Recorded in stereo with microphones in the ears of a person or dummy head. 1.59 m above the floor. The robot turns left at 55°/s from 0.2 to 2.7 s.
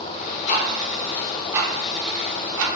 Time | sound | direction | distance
0.5 | ticking | 45° left (ahead or behind) | 0.6 m